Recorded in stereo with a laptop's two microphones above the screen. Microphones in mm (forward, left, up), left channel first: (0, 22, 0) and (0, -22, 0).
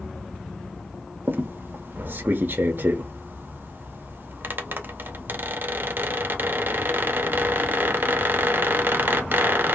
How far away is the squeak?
About 0.5 m.